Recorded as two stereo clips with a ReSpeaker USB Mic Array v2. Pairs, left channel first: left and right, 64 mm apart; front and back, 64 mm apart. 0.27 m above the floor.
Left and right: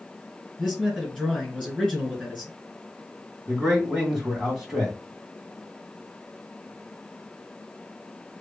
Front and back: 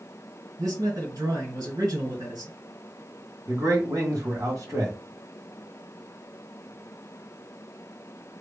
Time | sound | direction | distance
0.6 | a man speaking | straight behind | 2.5 m
3.5 | a man speaking | 170° right | 2.5 m